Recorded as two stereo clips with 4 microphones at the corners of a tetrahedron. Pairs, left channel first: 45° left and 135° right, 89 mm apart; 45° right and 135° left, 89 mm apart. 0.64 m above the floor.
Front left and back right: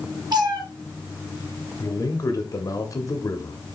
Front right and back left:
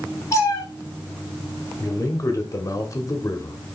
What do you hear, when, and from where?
0.3 s a cat meowing: 100° right, 2 m
1.8 s a man speaking: straight ahead, 1.1 m